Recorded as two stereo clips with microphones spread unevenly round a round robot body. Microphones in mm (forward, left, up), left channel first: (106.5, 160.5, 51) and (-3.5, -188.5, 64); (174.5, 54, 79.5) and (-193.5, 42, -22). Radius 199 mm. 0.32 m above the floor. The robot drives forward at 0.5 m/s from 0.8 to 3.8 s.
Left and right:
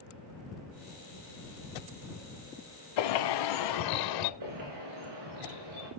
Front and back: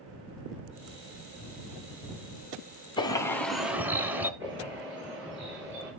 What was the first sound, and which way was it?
A bird, 80° left.